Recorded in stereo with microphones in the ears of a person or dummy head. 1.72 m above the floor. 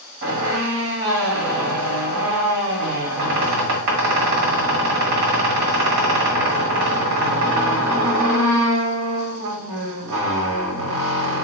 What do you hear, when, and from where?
0.2 s a squeak: 60° right (ahead or behind), 1.4 m